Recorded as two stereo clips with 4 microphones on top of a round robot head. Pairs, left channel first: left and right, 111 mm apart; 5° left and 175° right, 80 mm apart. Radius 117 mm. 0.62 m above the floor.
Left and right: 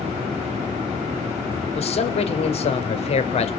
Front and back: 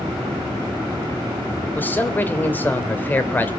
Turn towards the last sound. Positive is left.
turn(degrees=70)